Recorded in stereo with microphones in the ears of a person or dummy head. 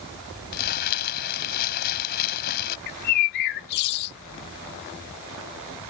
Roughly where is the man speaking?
No man speaking in this recording.